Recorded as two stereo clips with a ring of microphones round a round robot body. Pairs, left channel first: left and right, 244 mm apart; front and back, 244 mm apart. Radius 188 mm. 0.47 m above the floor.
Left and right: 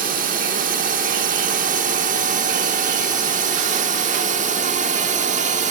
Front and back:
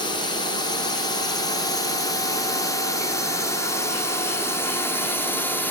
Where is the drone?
60° right; by 5.7 s 75° right.